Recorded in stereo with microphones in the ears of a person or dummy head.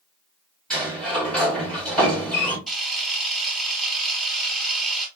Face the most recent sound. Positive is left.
turn(degrees=0)  # may be behind; listen again after turning